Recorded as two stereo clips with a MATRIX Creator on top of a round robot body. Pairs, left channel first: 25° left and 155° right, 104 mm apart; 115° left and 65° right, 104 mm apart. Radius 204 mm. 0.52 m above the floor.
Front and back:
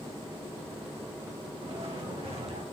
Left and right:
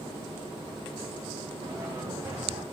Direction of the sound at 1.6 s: 125° right.